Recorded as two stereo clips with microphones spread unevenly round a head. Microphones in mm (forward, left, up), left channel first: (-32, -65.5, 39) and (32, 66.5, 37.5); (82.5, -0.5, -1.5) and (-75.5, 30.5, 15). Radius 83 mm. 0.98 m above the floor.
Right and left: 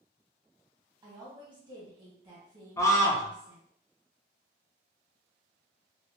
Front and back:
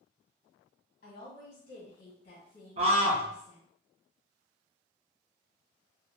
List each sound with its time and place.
1.0 s a woman speaking: 10° left, 1.5 m
2.8 s a scream: 165° right, 0.9 m